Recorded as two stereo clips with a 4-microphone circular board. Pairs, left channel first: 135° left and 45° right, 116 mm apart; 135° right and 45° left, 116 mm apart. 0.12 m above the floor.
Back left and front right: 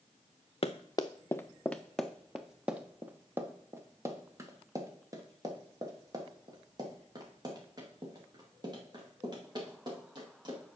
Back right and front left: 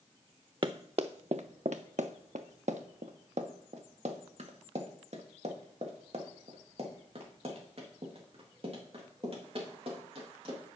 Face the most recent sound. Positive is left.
turn(degrees=10)